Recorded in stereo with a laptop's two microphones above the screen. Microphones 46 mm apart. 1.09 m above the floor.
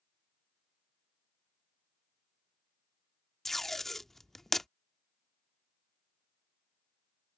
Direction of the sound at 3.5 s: 5° left (ahead or behind).